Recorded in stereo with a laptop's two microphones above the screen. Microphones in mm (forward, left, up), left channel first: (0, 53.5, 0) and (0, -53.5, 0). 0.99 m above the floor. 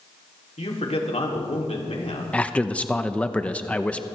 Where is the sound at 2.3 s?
10° left (ahead or behind), 0.7 m.